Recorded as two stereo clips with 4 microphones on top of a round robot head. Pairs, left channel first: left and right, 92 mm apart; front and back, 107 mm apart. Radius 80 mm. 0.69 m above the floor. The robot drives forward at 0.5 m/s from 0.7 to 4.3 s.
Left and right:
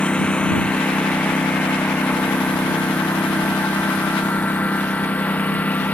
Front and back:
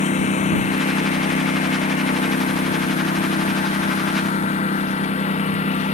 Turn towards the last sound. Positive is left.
turn(degrees=15)